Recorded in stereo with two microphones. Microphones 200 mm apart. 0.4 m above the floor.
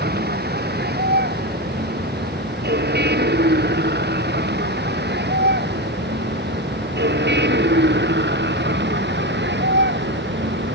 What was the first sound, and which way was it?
A vehicle, 55° right (ahead or behind).